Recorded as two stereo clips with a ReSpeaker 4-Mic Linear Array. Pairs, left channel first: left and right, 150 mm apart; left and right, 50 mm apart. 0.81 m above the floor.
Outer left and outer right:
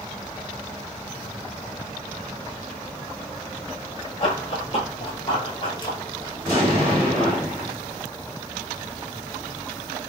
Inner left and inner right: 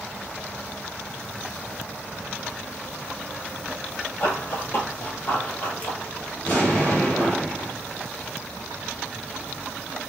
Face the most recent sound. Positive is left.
turn(degrees=40)  # may be behind; listen again after turning